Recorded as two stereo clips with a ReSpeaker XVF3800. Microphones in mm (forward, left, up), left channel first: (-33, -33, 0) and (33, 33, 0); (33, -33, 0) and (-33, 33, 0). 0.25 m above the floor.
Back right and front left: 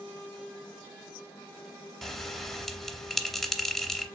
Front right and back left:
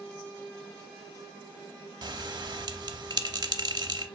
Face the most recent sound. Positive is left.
turn(degrees=140)